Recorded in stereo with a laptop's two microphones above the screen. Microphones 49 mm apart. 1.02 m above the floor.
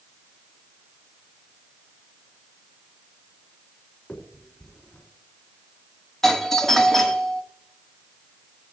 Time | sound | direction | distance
4.1 | a finger snap | 25° left (ahead or behind) | 3 m
6.2 | a doorbell | 10° left (ahead or behind) | 1.9 m